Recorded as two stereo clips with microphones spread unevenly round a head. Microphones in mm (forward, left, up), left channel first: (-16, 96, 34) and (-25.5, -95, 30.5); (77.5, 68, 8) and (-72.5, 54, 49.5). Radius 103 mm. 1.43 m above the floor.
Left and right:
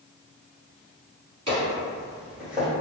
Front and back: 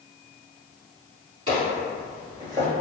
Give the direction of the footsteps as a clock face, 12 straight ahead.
5 o'clock.